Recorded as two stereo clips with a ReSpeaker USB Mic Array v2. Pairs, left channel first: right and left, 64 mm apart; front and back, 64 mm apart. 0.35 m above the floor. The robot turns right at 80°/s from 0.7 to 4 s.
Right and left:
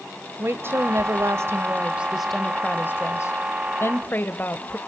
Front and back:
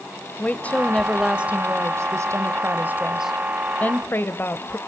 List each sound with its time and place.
0.4 s a woman speaking: 55° left, 1.2 m; by 4.8 s 40° right, 1.2 m